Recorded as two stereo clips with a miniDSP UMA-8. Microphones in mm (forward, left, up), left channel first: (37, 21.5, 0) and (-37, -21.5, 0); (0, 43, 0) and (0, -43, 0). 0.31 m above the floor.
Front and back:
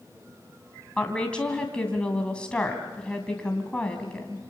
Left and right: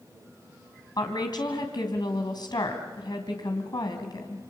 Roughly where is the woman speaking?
Left.